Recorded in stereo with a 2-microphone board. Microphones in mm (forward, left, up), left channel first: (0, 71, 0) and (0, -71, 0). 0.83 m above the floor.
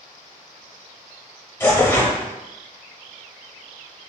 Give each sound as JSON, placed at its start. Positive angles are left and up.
{"t": 1.6, "sound": "tearing paper", "side_deg": 15, "distance_m": 0.8}